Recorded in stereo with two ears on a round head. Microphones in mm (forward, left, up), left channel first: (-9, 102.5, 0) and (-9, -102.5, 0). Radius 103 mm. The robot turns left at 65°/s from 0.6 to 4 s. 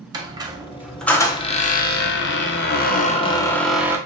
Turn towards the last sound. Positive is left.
turn(degrees=-20)